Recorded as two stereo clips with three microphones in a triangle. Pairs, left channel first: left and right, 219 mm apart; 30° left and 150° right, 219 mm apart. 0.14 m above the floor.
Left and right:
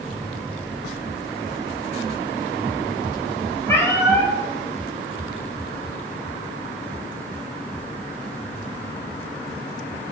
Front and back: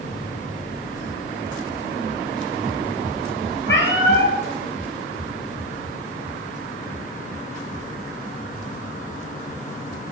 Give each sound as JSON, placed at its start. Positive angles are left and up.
{"t": 3.7, "sound": "a cat meowing", "azimuth_deg": 15, "distance_m": 1.3}